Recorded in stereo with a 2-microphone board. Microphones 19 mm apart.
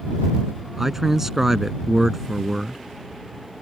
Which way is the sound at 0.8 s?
15° right (ahead or behind).